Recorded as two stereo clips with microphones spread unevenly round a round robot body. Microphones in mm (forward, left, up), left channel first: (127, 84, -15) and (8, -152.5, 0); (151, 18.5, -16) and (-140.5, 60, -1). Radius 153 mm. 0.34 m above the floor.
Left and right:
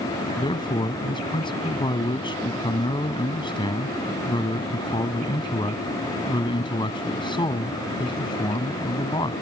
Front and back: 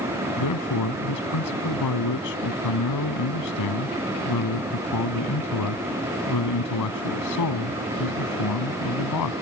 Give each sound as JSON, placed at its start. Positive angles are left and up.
{"t": 0.4, "sound": "a man speaking", "azimuth_deg": -5}